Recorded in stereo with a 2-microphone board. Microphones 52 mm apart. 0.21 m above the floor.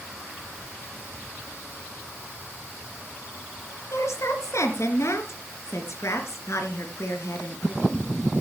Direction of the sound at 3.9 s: 65° left (ahead or behind).